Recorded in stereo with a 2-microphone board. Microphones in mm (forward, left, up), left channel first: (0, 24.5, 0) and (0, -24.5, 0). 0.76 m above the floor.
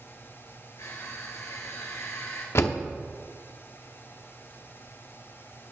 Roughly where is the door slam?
Left.